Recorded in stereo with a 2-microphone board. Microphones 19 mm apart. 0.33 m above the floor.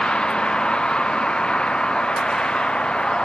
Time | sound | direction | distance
0.0 | a vehicle | 55° left (ahead or behind) | ?